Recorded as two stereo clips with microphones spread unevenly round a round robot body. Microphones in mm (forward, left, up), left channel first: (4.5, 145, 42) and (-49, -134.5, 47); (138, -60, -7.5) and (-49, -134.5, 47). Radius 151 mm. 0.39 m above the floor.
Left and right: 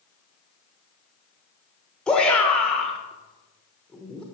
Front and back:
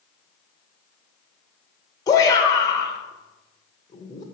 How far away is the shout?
About 1.2 m.